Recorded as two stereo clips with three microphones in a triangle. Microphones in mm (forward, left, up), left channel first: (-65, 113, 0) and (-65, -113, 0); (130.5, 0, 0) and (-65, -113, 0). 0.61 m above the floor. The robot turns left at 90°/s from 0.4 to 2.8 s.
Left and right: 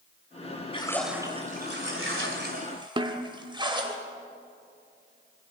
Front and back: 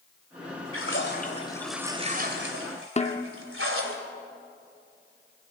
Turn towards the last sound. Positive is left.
turn(degrees=-25)